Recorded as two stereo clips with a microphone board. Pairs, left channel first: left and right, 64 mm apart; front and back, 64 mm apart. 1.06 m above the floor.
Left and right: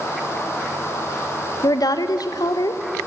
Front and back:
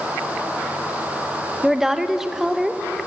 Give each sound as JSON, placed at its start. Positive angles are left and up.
{"t": 1.6, "sound": "a woman speaking", "azimuth_deg": 95, "distance_m": 0.7}